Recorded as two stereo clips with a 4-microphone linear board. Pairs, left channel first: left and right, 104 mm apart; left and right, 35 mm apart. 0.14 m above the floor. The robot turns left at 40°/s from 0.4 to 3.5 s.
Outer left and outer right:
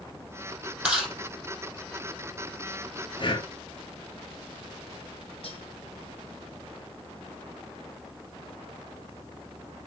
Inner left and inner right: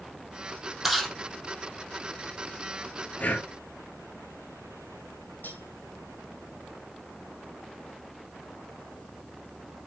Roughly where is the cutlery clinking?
Left.